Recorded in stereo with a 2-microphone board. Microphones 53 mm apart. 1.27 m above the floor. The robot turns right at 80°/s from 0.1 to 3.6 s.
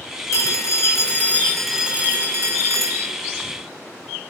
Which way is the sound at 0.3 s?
75° left.